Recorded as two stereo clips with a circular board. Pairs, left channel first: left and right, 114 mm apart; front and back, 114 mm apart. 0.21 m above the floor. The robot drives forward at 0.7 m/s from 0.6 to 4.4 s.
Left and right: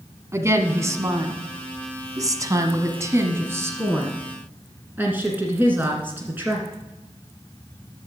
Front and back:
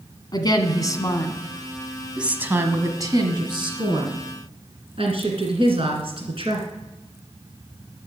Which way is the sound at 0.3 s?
35° right.